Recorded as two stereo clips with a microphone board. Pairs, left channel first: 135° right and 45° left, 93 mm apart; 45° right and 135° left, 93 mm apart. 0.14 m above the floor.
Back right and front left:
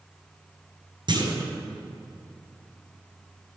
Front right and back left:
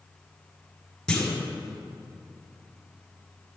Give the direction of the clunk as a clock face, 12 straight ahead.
11 o'clock.